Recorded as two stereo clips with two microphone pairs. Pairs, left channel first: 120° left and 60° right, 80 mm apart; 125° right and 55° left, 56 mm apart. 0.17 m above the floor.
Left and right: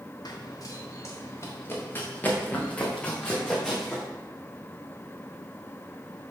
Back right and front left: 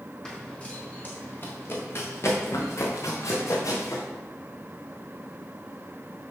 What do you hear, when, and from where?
0.2 s running footsteps: 160° left, 2.5 m; by 4.0 s 155° right, 4 m